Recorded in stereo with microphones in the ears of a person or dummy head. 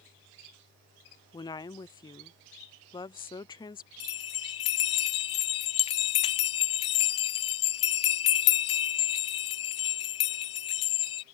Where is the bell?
35° left (ahead or behind).